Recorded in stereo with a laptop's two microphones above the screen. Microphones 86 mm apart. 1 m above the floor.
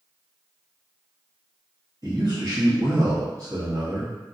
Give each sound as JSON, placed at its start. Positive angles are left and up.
{"t": 2.0, "sound": "a man speaking", "side_deg": -40, "distance_m": 1.5}